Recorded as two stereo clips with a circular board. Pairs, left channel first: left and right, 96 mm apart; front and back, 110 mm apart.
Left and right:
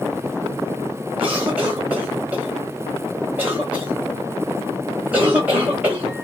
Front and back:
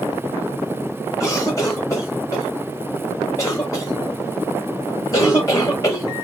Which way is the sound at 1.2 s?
30° right.